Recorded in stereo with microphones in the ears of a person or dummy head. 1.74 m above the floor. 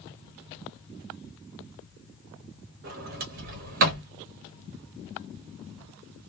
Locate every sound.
2.8 s a sliding door: 45° right (ahead or behind), 0.9 m